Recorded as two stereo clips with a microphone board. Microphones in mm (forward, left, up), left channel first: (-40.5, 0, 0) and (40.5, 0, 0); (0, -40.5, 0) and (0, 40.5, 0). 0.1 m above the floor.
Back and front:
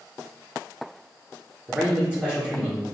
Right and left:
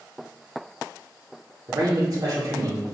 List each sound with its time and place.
1.7 s a man speaking: 75° left, 1.6 m